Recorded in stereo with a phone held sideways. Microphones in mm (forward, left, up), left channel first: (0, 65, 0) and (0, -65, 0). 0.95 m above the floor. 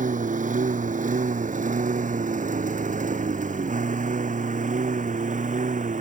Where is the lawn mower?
75° right (ahead or behind).